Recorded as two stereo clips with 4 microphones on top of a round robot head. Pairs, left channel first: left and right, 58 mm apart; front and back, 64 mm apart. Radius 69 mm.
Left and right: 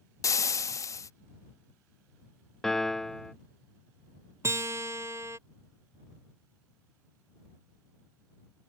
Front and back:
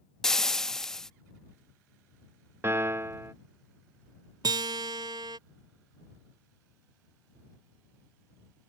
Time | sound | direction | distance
0.2 | frying | 80° left | ?
2.6 | a piano | 170° left | ?
4.4 | a guitar | 145° right | ?